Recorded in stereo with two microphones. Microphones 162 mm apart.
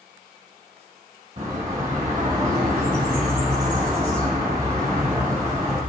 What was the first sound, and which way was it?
A bird, 50° right (ahead or behind).